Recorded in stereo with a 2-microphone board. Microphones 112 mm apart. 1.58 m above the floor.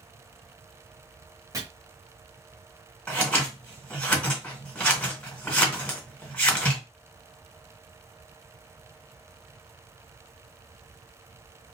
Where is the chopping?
30° right (ahead or behind), 1.5 m.